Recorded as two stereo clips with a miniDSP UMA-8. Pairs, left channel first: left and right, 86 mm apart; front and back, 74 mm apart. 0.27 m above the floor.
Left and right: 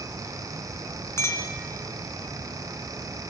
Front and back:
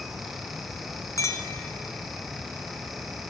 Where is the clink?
35° left, 1.8 m.